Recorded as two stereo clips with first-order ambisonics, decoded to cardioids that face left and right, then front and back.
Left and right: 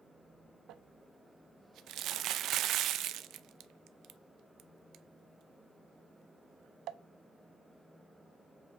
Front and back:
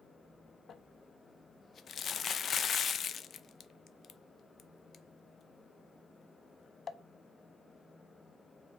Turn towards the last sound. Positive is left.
turn(degrees=-55)